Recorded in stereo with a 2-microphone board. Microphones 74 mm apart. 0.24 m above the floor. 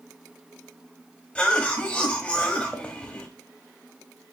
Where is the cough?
15° left (ahead or behind), 0.9 m.